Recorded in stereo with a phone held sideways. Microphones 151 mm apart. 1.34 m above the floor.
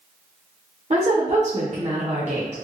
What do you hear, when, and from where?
0.9 s a woman speaking: 50° right (ahead or behind), 0.8 m